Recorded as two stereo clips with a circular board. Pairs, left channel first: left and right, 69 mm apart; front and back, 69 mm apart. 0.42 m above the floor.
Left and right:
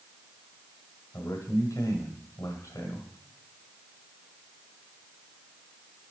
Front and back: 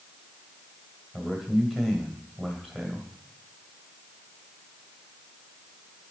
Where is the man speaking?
85° left, 1.9 m.